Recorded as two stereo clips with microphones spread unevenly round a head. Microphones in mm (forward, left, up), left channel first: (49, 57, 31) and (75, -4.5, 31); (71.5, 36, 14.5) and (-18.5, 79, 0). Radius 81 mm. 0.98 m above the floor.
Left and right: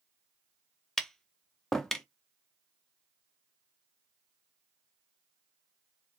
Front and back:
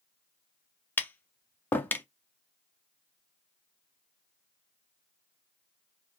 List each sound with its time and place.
1.0 s tapping: 30° left, 0.5 m